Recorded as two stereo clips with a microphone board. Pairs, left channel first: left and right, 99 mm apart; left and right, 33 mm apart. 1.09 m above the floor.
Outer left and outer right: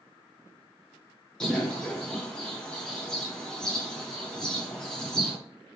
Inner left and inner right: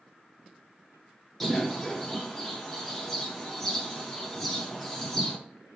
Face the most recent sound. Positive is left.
turn(degrees=10)  # may be behind; listen again after turning